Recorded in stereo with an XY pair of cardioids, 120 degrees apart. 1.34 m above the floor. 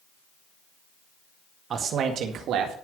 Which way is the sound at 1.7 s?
50° right.